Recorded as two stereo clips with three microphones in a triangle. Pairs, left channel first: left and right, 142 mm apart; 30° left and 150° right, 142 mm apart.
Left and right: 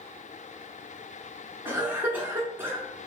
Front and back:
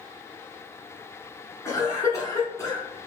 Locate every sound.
1.6 s a cough: 25° right, 1.6 m